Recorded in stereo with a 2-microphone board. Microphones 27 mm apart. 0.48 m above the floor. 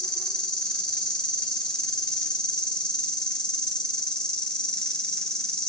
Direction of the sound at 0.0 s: 30° left (ahead or behind).